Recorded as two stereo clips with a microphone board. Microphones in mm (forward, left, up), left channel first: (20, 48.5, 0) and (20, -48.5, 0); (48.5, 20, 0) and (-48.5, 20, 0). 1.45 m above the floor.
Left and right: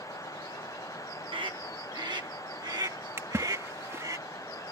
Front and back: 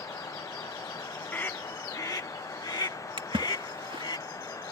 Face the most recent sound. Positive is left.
turn(degrees=-150)